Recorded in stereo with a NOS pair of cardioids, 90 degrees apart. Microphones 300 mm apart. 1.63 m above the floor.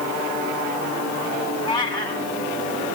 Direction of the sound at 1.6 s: 15° left.